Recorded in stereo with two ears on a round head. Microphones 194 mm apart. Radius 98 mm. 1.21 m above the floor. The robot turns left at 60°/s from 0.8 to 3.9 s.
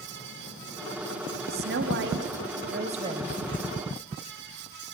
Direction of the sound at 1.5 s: 55° right.